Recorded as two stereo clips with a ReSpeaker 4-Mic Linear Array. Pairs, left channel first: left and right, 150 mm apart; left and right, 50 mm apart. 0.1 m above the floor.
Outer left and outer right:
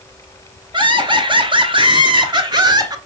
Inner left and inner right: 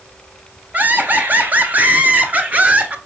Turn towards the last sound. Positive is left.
turn(degrees=-25)  # may be behind; listen again after turning